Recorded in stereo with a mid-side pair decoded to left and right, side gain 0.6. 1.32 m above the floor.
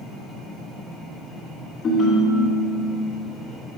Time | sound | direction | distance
1.8 | a ringtone | 45° left | 1.2 m